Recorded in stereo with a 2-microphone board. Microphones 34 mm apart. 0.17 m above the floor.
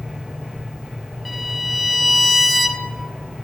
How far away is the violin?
About 0.7 m.